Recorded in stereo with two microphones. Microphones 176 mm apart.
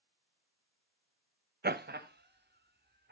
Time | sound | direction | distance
1.6 | laughter | 60° right (ahead or behind) | 0.5 m